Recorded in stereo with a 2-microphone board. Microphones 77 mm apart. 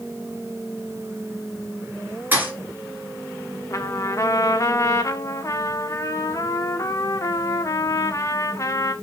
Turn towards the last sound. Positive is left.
turn(degrees=40)  # may be behind; listen again after turning